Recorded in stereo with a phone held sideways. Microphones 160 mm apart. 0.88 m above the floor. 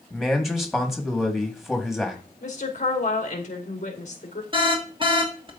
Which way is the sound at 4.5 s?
35° right (ahead or behind).